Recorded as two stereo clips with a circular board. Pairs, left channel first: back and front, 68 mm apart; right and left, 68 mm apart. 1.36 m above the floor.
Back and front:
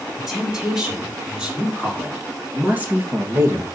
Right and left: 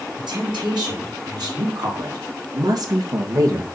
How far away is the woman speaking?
About 5 m.